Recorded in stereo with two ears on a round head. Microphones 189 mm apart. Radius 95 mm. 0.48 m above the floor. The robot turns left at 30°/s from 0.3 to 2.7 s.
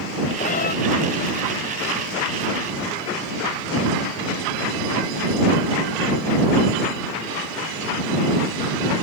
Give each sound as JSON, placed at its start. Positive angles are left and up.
{"t": 0.4, "sound": "a cat meowing", "side_deg": 35}